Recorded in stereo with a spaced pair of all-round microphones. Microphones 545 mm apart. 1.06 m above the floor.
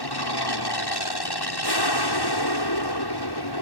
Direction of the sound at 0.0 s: 45° left (ahead or behind).